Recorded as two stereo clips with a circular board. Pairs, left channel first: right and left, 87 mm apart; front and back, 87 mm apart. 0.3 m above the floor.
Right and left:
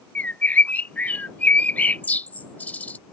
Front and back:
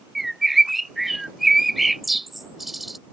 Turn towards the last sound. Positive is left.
turn(degrees=-95)